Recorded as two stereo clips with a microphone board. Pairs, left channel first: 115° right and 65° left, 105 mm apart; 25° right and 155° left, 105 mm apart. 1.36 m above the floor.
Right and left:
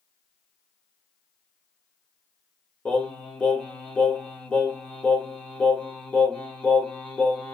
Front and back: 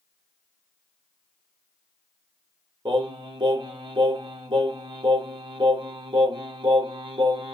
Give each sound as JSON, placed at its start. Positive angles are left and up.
{"t": 2.9, "sound": "singing", "azimuth_deg": 175, "distance_m": 1.3}